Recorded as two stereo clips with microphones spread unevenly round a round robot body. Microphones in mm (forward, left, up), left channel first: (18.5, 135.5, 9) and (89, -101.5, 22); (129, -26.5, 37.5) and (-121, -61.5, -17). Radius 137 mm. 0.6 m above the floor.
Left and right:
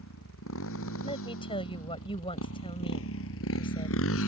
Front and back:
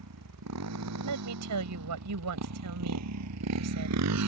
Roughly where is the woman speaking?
Behind.